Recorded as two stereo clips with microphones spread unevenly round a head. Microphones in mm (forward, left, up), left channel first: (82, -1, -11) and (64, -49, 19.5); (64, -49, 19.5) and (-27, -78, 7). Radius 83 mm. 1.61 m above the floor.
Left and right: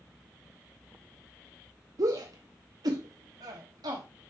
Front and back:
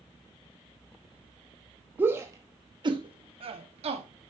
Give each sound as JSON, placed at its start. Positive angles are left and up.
{"t": 2.0, "sound": "a shout", "azimuth_deg": -95, "distance_m": 1.2}